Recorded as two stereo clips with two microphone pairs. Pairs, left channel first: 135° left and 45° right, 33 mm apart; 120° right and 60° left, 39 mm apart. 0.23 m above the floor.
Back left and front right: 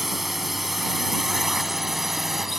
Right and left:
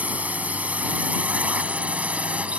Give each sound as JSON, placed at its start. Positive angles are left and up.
{"t": 0.0, "sound": "a drone", "azimuth_deg": 35}